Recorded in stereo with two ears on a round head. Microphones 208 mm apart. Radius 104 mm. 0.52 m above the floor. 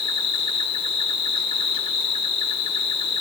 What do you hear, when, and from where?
0.0 s an insect: 25° left (ahead or behind), 0.8 m